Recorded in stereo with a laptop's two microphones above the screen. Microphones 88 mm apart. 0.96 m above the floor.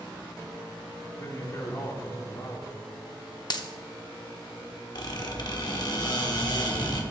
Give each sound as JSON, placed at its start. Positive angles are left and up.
{"t": 1.2, "sound": "a man speaking", "side_deg": 35, "distance_m": 2.5}
{"t": 3.5, "sound": "a dropped coin", "side_deg": 55, "distance_m": 0.7}
{"t": 5.0, "sound": "a squeak", "side_deg": 55, "distance_m": 1.3}